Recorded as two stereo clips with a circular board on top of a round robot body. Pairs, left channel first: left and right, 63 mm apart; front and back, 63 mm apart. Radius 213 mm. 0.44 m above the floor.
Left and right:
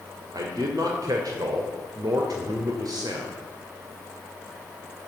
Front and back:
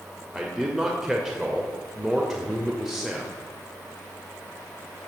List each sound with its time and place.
0.3 s a man speaking: 95° right, 2.5 m